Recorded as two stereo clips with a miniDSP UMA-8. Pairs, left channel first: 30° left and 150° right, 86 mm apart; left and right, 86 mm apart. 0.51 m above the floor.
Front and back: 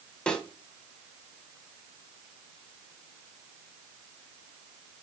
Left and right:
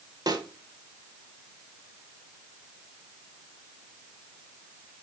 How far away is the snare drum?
About 1.7 m.